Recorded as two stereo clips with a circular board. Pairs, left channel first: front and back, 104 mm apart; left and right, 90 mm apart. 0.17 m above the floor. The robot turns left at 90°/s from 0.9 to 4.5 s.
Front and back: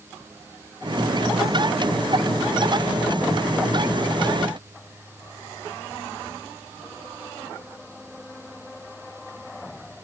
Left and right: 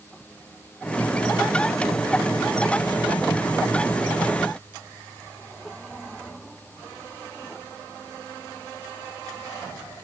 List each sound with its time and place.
Only background noise.